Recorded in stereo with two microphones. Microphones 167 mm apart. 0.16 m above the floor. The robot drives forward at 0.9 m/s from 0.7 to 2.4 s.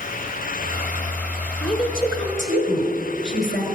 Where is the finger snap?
No finger snap in this recording.